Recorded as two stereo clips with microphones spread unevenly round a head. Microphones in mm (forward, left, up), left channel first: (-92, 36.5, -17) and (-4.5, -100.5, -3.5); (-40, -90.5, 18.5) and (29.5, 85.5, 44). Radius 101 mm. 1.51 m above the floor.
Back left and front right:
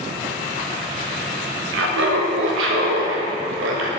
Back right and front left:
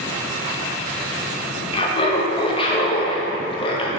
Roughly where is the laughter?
Ahead right.